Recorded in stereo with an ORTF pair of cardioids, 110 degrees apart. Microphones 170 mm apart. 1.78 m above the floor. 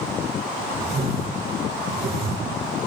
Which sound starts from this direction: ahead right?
A whoosh, at 0.8 s.